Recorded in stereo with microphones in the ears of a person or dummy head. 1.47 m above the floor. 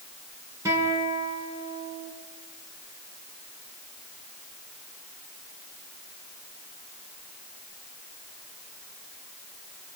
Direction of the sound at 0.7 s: 20° right (ahead or behind).